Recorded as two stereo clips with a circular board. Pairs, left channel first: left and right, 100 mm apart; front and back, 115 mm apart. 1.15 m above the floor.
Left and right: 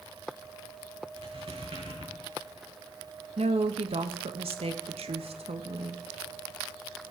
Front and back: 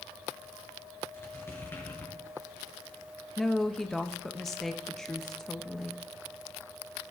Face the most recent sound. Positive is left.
turn(degrees=-85)